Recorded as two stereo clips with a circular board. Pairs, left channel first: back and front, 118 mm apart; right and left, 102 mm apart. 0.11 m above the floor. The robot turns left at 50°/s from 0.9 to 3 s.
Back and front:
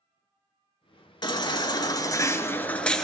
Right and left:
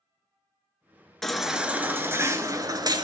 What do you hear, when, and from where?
1.2 s a baby crying: 175° right, 0.9 m; by 3.0 s 95° left, 0.9 m